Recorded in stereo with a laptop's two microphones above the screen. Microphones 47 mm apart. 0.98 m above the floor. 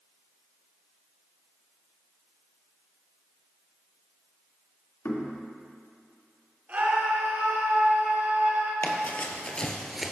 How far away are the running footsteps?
About 1.4 m.